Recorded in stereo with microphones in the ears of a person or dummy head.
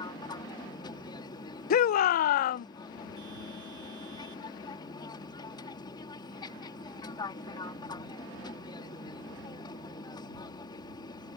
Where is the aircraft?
25° left (ahead or behind).